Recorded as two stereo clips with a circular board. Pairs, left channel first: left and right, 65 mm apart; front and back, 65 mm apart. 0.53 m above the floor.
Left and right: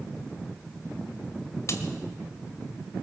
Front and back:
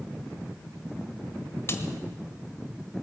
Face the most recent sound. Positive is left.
turn(degrees=50)